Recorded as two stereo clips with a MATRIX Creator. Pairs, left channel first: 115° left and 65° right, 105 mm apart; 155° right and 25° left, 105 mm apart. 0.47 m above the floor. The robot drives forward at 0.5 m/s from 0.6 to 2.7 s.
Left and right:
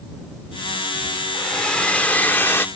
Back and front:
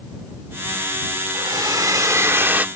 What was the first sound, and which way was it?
A hair dryer, 30° left.